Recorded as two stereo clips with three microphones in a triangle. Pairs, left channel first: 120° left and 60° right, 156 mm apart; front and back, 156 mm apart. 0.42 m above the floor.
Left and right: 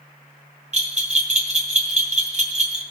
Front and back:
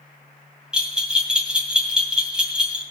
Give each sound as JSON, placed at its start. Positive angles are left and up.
{"t": 0.7, "sound": "a bell", "azimuth_deg": -95, "distance_m": 2.5}